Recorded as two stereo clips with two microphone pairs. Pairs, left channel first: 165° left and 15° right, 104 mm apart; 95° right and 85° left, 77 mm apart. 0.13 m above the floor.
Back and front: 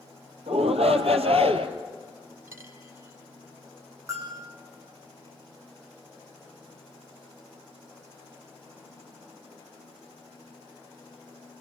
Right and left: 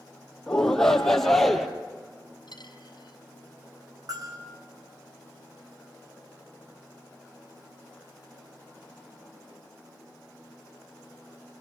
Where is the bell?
50° left, 8 m.